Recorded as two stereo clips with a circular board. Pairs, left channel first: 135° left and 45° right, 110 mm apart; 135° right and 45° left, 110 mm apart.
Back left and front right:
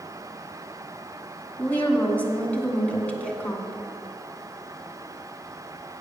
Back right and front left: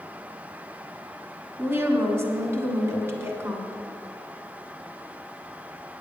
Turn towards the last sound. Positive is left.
turn(degrees=75)